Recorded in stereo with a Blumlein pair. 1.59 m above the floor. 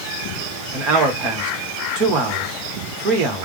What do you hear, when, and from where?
0.7 s a man speaking: 35° right, 1.1 m